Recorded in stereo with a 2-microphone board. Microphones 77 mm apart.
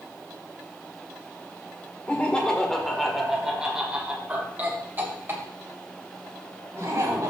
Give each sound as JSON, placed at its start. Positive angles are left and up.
{"t": 2.1, "sound": "laughter", "side_deg": 20, "distance_m": 1.7}